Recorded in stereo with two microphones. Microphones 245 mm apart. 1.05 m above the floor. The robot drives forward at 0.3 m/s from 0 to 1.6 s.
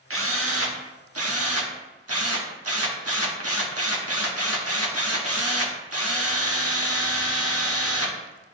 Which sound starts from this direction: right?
A drill, at 0.1 s.